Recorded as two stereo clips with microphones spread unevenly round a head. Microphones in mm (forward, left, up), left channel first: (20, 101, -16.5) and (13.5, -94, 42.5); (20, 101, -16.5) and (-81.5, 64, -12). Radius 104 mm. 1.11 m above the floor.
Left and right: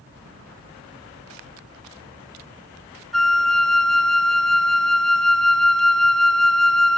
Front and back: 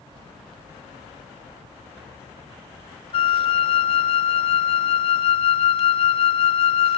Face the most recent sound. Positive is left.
turn(degrees=-10)